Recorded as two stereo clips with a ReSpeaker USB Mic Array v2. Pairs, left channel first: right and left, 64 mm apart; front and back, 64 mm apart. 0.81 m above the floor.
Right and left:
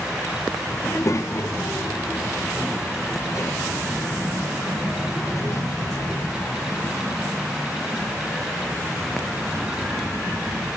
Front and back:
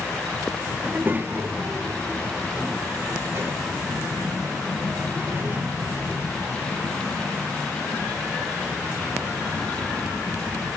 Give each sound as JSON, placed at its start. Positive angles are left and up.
{"t": 0.8, "sound": "a child speaking", "azimuth_deg": -125, "distance_m": 0.7}